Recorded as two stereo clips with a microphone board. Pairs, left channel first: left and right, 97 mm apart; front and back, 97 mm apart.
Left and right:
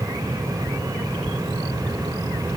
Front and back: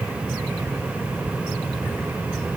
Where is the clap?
I don't hear a clap.